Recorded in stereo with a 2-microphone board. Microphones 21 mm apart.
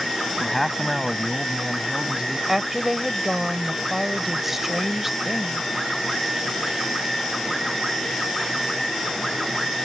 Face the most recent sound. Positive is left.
turn(degrees=-15)  # may be behind; listen again after turning